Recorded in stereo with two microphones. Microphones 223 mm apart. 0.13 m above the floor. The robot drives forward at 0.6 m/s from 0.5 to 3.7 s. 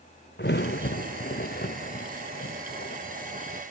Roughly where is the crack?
Left.